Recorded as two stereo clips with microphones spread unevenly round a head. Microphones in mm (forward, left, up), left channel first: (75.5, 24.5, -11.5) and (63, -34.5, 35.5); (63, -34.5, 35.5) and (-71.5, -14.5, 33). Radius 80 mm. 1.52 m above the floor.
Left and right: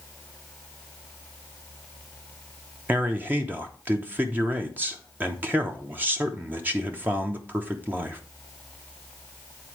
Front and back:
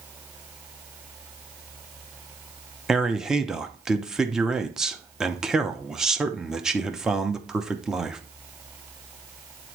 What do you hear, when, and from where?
2.9 s a man speaking: 105° right, 0.8 m